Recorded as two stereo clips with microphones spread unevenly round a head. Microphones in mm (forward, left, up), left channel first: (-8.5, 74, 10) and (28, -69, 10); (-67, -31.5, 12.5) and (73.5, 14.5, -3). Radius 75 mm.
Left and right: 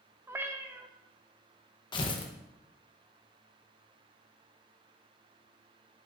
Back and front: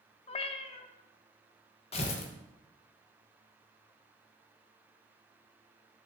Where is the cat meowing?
145° right, 0.5 m.